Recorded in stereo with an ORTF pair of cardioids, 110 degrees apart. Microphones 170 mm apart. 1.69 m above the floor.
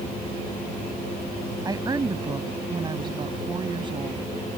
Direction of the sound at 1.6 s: 20° right.